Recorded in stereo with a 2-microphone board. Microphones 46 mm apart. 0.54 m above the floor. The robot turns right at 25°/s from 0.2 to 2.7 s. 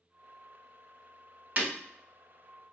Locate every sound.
1.6 s breaking glass: 40° right (ahead or behind), 1.0 m; by 1.7 s 35° right (ahead or behind), 1.0 m